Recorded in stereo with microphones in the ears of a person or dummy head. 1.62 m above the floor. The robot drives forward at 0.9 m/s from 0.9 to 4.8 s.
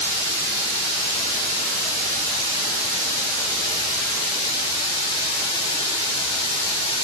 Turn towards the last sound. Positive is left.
turn(degrees=-70)  # may be behind; listen again after turning